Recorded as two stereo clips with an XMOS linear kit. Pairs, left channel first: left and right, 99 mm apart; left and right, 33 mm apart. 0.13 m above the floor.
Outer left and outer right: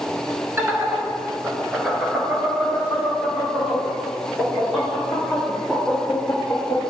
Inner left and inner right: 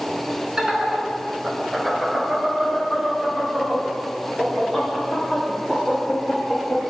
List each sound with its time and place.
0.6 s laughter: 25° right (ahead or behind), 1.3 m; by 6.8 s centre (ahead or behind), 5 m